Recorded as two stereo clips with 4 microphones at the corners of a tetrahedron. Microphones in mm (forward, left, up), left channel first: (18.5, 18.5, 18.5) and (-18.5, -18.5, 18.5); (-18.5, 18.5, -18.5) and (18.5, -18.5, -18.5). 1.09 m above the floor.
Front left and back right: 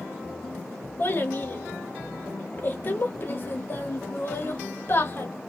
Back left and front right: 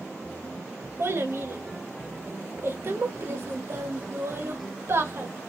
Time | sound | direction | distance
1.0 | a child speaking | 5° right | 1.0 m